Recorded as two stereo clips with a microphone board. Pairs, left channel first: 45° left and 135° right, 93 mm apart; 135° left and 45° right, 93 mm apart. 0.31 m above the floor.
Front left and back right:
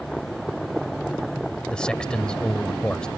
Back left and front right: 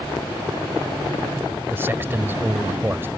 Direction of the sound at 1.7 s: 25° right.